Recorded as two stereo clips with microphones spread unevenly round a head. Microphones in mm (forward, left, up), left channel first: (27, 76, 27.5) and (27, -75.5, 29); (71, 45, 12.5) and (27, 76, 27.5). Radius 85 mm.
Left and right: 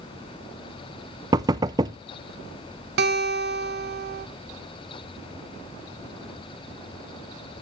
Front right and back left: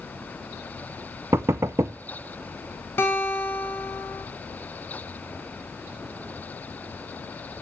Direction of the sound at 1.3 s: 155° right.